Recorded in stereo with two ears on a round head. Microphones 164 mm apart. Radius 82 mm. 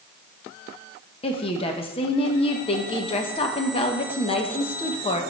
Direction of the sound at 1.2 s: 30° left (ahead or behind).